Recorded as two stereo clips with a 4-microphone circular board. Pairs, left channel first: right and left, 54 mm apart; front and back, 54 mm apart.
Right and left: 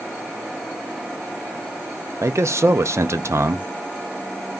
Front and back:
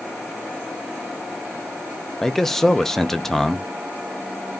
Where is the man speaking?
80° left, 0.5 m.